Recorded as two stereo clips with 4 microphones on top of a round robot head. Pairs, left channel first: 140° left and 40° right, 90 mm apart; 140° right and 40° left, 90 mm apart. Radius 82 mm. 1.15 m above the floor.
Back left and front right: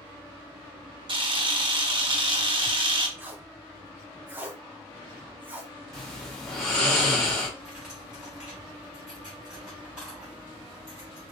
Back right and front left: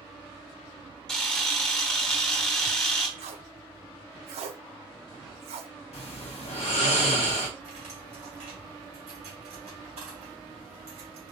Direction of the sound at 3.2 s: 35° left.